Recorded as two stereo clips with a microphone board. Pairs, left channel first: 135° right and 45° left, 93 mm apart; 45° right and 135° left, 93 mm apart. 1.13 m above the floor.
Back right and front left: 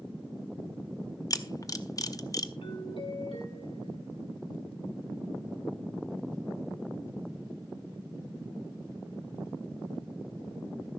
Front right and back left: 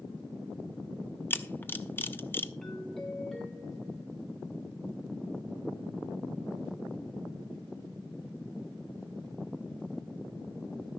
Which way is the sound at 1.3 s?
105° right.